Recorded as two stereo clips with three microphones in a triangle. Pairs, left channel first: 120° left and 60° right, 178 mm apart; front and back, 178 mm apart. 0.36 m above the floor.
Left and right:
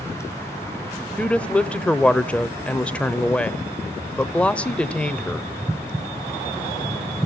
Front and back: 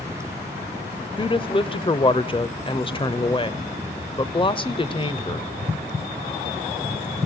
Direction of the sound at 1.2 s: 40° left.